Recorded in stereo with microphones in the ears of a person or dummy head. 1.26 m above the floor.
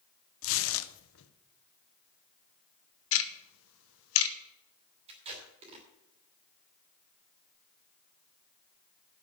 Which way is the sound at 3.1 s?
70° left (ahead or behind).